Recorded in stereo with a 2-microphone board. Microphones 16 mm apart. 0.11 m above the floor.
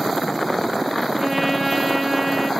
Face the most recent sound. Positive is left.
turn(degrees=-20)  # may be behind; listen again after turning